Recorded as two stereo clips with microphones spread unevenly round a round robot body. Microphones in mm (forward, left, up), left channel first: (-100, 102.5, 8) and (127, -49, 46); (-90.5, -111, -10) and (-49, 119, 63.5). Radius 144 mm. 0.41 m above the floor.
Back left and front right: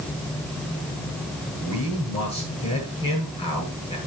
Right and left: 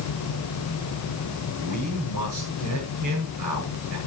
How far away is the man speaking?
About 8 m.